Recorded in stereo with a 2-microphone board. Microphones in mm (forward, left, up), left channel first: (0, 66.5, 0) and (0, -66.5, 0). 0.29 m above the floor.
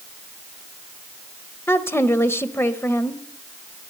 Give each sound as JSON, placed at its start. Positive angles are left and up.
{"t": 1.7, "sound": "a woman speaking", "side_deg": 20, "distance_m": 0.9}